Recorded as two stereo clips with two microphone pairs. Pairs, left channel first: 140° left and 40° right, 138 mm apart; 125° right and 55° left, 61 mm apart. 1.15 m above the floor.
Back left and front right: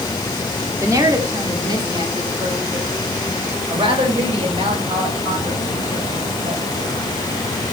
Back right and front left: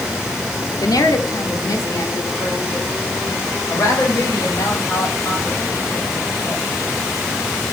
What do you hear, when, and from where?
0.8 s a woman speaking: 105° right, 2.5 m; by 6.6 s 80° right, 6 m